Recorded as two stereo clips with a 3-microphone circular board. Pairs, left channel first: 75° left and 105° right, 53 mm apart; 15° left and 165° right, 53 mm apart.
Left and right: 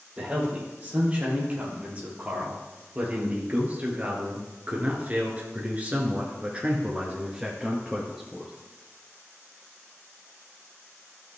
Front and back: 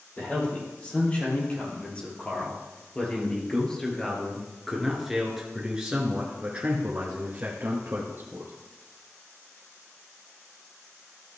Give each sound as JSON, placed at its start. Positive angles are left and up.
{"t": 0.2, "sound": "a man speaking", "azimuth_deg": -40, "distance_m": 4.0}